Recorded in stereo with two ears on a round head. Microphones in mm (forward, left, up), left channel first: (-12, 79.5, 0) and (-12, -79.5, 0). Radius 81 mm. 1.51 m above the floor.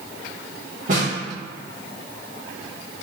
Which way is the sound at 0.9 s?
50° right (ahead or behind).